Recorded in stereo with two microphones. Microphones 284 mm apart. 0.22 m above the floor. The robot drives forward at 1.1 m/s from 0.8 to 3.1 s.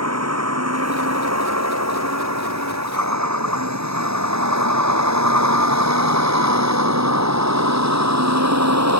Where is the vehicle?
65° right (ahead or behind); by 9.0 s 70° right (ahead or behind).